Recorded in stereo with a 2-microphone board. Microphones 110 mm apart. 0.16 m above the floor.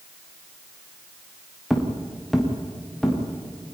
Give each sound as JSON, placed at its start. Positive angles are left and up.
{"t": 1.7, "sound": "footsteps", "side_deg": -5, "distance_m": 3.5}